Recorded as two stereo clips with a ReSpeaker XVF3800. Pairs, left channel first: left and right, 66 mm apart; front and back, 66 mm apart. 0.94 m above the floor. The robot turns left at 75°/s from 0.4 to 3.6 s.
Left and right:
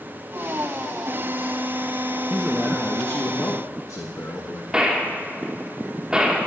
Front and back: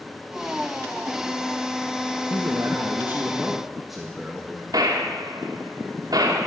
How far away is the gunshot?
About 1.9 m.